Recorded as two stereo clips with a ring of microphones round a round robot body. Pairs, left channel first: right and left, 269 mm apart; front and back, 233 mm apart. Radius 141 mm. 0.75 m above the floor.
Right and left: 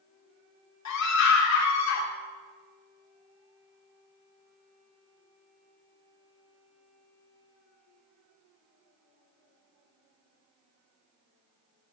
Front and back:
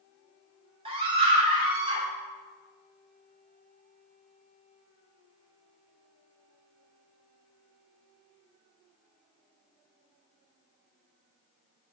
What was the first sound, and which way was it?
A scream, 110° right.